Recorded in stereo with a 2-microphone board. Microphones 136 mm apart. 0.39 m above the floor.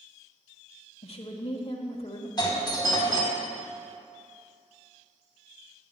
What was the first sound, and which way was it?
A woman speaking, 50° left (ahead or behind).